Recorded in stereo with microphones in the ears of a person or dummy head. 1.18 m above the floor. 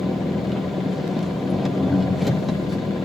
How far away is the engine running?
About 0.8 m.